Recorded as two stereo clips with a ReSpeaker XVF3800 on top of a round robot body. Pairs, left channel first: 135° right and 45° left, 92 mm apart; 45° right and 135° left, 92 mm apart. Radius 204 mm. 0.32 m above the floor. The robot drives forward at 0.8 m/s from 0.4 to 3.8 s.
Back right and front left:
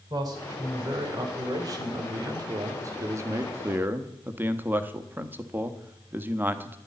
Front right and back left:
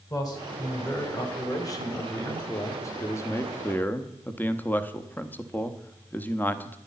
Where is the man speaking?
Straight ahead, 3.5 m.